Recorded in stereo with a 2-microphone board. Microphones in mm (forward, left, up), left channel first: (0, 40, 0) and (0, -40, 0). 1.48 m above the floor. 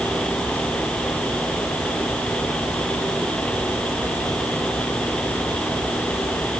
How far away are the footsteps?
No footsteps in this recording.